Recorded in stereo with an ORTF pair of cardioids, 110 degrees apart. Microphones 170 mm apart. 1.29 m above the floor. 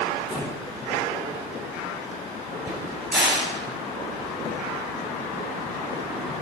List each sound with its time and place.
0.3 s breathing: 35° left, 2.5 m
2.7 s a crack: 5° right, 5 m